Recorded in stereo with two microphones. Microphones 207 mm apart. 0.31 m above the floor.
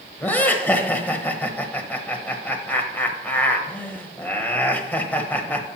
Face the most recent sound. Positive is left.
turn(degrees=10)  # may be behind; listen again after turning